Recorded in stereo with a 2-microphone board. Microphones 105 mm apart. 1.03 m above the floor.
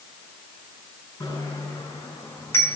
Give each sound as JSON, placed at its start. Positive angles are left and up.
{"t": 1.2, "sound": "a bicycle bell", "side_deg": 35, "distance_m": 7.0}